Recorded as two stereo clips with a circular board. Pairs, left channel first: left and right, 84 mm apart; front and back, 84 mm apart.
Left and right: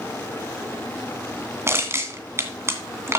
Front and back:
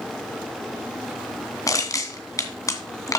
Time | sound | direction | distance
1.7 | crushing | 40° right | 2 m